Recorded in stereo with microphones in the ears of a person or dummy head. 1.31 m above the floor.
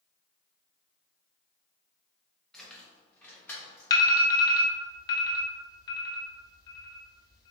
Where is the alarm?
20° left (ahead or behind), 0.8 m.